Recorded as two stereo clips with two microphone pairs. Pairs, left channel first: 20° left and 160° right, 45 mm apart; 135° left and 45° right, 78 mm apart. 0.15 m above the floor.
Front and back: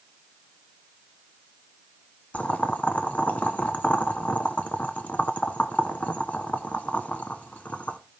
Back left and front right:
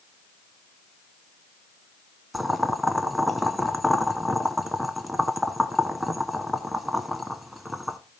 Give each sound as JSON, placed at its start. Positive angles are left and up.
{"t": 2.3, "sound": "boiling", "azimuth_deg": 40, "distance_m": 0.9}